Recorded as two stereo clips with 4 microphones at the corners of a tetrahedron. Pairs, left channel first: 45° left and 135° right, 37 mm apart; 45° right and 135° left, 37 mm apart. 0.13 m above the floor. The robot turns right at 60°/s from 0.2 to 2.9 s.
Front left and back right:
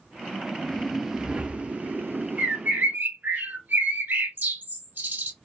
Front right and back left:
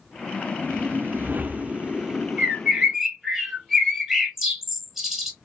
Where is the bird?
175° right, 0.9 m; by 5.3 s 140° right, 0.9 m.